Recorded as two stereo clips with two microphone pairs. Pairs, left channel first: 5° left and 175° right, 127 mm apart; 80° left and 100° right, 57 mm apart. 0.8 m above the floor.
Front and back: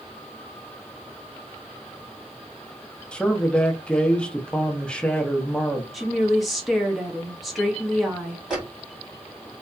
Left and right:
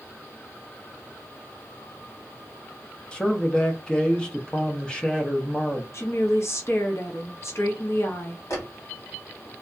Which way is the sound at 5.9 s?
100° left.